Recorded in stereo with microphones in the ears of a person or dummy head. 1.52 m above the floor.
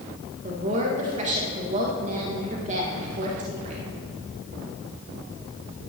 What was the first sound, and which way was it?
A woman speaking, 45° right (ahead or behind).